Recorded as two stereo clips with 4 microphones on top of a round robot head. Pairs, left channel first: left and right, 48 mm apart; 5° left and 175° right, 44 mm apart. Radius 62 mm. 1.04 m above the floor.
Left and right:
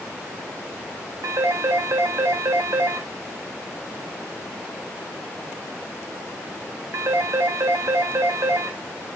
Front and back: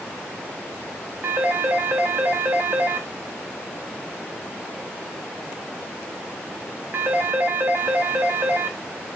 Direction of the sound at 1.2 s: 125° right.